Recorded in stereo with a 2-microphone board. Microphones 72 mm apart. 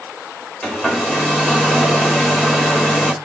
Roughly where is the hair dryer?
Centre.